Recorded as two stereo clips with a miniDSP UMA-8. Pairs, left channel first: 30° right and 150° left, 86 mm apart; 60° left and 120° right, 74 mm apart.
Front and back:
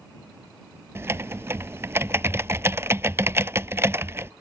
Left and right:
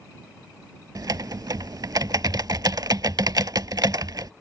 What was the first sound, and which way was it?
Typing on a keyboard, 150° right.